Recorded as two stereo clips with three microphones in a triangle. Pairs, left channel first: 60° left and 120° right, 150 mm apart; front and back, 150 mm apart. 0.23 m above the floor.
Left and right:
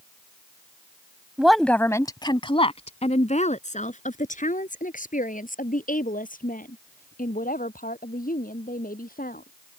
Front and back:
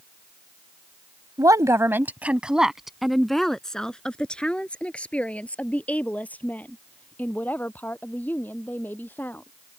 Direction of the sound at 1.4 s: 165° left.